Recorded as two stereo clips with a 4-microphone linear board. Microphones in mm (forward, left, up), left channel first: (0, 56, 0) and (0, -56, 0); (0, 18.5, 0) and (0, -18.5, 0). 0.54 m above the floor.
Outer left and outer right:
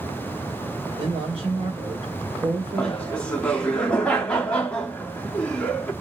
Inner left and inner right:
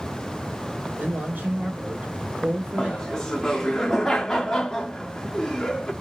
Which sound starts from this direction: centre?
Laughter, at 2.8 s.